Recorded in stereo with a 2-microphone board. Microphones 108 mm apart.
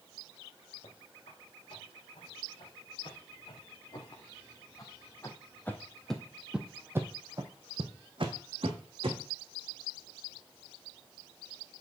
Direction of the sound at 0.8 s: 65° left (ahead or behind).